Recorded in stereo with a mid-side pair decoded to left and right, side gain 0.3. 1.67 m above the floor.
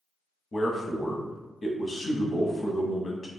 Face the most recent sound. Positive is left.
turn(degrees=55)